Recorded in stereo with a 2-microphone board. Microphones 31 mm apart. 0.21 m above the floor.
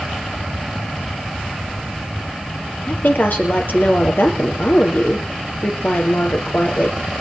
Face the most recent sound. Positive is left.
turn(degrees=70)  # may be behind; listen again after turning